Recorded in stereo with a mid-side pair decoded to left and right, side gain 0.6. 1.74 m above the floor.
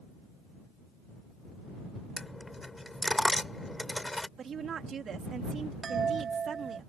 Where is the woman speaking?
40° right.